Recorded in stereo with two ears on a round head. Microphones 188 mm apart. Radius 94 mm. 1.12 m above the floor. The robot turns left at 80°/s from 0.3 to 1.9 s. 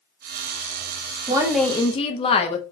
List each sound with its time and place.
1.3 s a woman speaking: 155° right, 0.6 m; by 2.6 s 155° left, 0.6 m